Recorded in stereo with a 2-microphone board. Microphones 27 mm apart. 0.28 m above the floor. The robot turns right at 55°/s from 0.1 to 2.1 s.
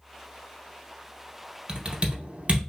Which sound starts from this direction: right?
Typing on a keyboard, at 1.7 s.